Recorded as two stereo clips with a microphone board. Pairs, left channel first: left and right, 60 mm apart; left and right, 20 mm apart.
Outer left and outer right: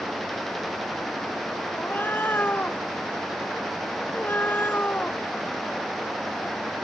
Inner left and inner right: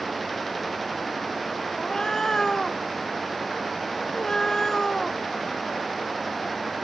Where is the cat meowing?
30° left (ahead or behind).